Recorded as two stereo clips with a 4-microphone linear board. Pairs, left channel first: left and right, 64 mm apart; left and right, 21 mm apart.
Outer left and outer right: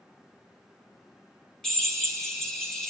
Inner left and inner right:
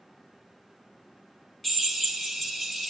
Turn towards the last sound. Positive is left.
turn(degrees=5)  # may be behind; listen again after turning